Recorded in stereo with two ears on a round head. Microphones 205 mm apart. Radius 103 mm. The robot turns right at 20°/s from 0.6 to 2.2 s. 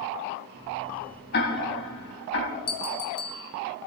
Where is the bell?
25° left (ahead or behind), 2 m.